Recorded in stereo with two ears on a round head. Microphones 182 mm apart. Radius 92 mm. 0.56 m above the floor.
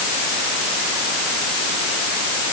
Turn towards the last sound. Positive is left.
No sound to turn to.